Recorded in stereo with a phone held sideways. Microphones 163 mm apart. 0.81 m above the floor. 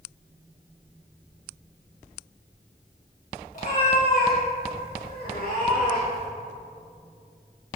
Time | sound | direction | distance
3.5 | a cat meowing | 60° left (ahead or behind) | 2 m